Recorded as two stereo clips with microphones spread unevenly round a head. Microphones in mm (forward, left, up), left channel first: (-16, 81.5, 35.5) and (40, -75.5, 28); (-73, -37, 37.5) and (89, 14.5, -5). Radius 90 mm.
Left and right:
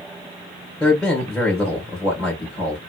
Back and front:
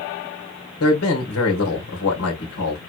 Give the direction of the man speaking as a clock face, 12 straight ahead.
5 o'clock.